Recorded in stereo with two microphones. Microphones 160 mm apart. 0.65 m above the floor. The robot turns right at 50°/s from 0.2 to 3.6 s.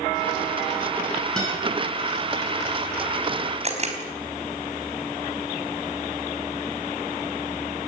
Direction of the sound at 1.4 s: 5° left (ahead or behind).